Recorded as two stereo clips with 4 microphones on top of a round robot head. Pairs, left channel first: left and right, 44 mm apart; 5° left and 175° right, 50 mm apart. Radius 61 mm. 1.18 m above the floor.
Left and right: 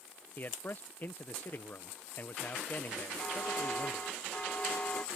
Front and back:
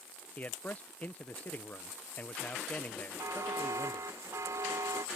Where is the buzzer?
160° left.